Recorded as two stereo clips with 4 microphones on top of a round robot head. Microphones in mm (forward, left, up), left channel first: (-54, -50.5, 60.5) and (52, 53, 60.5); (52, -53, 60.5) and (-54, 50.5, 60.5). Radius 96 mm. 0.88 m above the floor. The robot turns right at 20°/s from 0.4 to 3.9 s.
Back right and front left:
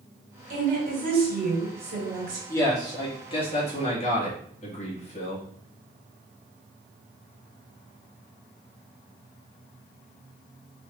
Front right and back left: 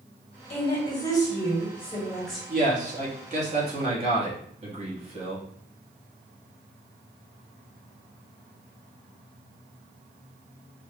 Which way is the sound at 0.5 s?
10° left.